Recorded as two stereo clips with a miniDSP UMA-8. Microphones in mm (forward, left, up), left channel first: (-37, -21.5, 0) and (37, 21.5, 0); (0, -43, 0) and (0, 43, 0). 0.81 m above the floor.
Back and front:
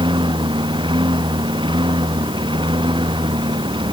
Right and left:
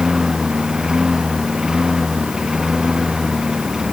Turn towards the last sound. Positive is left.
turn(degrees=10)